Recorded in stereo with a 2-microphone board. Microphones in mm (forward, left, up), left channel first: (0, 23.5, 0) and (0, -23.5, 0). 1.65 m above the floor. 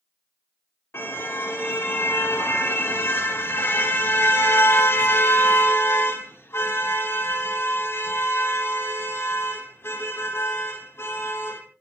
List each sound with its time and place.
0.9 s a car horn: 55° left (ahead or behind), 3 m